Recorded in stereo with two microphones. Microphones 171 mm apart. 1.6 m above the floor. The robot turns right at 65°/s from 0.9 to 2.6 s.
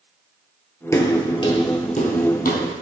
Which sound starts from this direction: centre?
Footsteps, at 0.9 s.